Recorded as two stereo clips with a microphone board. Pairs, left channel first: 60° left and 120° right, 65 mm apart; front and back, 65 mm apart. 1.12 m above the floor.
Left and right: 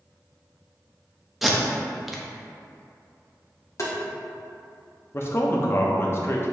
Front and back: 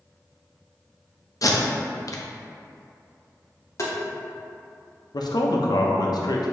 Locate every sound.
1.4 s tape being pulled: 35° right, 0.6 m
3.8 s tapping: 30° left, 0.9 m
5.1 s a man speaking: 10° left, 0.6 m